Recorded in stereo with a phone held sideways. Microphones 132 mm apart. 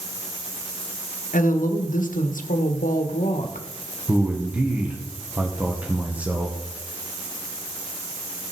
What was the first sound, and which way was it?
A woman speaking, 80° left.